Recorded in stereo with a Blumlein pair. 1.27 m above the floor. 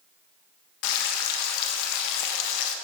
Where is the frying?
45° left, 1.4 m.